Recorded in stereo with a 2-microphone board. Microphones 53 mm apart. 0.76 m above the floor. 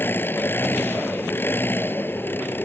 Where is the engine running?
40° left (ahead or behind).